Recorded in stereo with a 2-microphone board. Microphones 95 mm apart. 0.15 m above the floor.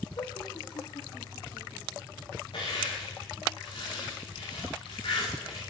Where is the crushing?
55° left (ahead or behind), 8.5 m.